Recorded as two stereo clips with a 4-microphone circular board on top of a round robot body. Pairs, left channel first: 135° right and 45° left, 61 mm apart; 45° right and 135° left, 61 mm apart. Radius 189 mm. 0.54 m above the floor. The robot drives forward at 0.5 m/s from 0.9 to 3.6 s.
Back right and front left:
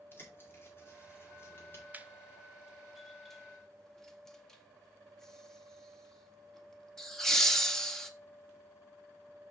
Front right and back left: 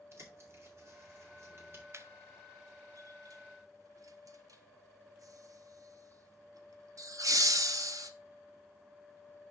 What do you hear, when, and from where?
0.1 s a bird: 175° left, 3 m
1.9 s laughter: 105° left, 1.1 m; by 8.1 s 140° left, 1.5 m